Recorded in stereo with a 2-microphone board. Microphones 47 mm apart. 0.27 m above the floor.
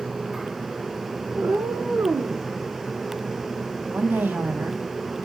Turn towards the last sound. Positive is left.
turn(degrees=-45)  # may be behind; listen again after turning